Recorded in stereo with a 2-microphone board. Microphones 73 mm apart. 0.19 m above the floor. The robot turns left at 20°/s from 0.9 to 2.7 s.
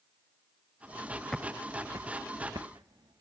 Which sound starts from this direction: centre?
Footsteps, at 1.3 s.